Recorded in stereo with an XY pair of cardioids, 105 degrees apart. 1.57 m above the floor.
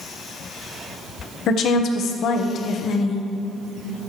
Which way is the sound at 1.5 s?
70° left.